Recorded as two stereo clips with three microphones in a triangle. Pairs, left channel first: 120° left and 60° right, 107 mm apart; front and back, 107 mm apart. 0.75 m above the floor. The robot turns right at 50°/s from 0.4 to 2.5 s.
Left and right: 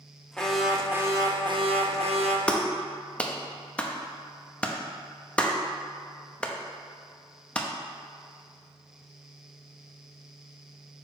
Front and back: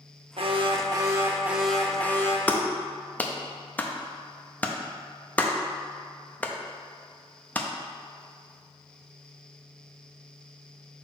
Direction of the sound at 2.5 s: 55° left.